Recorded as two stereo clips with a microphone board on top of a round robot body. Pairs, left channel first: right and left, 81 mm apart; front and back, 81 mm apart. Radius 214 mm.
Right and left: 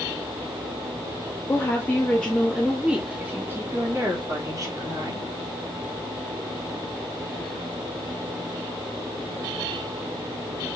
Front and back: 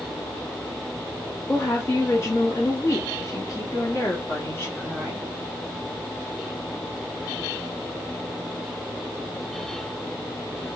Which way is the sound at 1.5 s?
50° right.